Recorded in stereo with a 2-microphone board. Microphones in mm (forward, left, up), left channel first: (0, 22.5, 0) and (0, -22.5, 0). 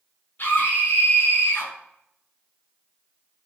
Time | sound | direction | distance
0.4 | a scream | 45° left (ahead or behind) | 5 m